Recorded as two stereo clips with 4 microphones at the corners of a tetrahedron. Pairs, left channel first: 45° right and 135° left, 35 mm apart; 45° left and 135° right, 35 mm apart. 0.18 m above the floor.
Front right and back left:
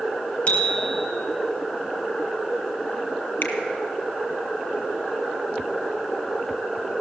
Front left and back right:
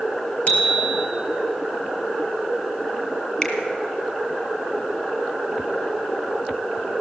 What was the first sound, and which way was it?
A bicycle bell, 5° left.